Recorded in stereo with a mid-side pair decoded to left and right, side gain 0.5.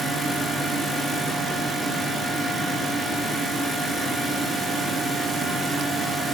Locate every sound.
0.0 s a fan: 25° right, 1.6 m